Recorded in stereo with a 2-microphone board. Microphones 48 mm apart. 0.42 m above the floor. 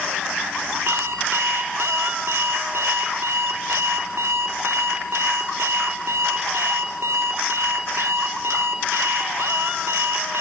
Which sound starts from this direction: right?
An alarm clock, at 0.9 s.